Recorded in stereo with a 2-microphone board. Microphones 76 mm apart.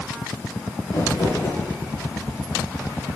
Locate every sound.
0.9 s crumpling: 65° left (ahead or behind), 7.5 m